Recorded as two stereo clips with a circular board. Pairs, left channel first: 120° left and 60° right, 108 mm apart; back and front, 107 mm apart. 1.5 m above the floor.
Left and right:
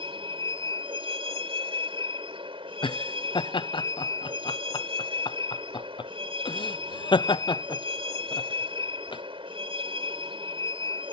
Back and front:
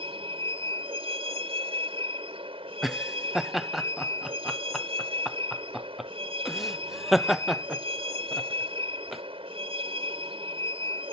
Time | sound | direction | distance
0.0 | a vehicle | 25° right | ?
2.8 | laughter | 90° left | ?